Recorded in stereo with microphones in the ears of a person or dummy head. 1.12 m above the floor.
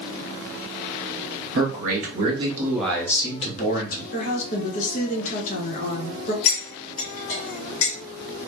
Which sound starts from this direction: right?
A man speaking, at 1.6 s.